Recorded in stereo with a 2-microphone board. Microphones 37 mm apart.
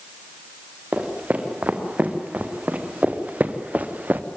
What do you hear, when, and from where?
0.9 s footsteps: 40° right (ahead or behind), 3.5 m; by 4.2 s 50° right (ahead or behind), 1.4 m